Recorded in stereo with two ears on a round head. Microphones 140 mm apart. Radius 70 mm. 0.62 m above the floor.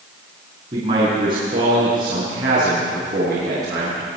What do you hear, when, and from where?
0.7 s a man speaking: 35° right (ahead or behind), 7 m; by 4.2 s 20° right (ahead or behind), 9.5 m